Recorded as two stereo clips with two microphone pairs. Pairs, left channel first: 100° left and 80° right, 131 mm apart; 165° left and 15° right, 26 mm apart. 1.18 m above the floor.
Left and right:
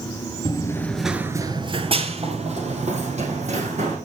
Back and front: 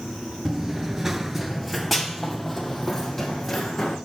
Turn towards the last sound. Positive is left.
turn(degrees=-105)